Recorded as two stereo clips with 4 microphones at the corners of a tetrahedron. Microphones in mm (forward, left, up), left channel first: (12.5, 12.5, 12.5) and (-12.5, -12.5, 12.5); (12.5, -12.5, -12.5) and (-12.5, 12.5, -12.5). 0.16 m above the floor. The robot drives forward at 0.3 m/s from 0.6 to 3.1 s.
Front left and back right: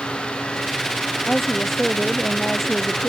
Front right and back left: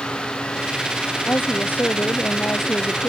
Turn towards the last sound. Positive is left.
turn(degrees=-40)